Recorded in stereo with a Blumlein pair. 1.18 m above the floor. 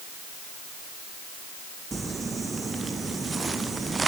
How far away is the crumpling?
About 0.6 m.